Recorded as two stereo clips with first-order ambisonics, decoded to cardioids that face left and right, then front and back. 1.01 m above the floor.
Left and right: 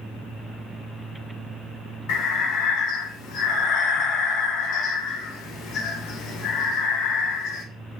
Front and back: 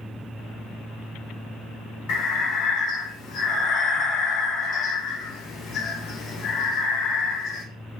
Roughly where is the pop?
No pop in this recording.